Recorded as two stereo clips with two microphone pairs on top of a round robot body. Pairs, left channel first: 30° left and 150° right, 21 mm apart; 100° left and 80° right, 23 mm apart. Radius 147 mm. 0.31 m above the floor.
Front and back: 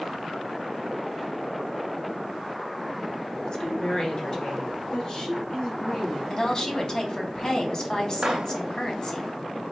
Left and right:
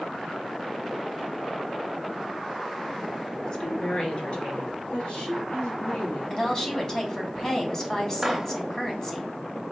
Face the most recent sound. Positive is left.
turn(degrees=-155)